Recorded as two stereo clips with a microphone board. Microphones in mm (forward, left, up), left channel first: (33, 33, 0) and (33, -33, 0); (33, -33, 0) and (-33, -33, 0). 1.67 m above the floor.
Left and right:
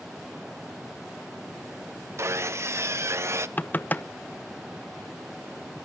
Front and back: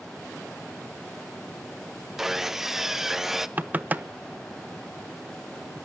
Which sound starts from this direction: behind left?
Knocking, at 3.6 s.